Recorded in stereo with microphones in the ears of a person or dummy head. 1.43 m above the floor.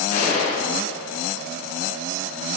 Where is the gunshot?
50° left (ahead or behind), 5 m.